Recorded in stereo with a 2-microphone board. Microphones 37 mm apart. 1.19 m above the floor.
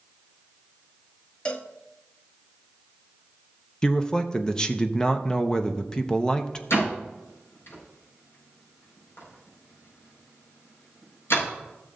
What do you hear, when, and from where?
1.4 s a cowbell: 25° left (ahead or behind), 0.8 m
3.8 s a man speaking: 15° left (ahead or behind), 0.7 m
6.7 s a door slam: 80° left, 5 m